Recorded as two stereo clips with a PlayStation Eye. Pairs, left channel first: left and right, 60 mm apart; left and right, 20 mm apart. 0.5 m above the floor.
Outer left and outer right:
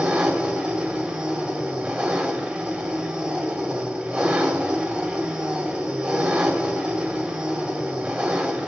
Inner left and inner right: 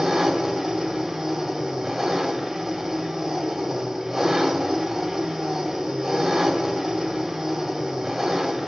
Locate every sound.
0.0 s an engine running: 15° right (ahead or behind), 2.5 m